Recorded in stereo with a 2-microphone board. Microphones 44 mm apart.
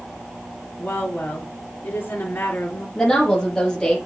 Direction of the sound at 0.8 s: 50° left (ahead or behind).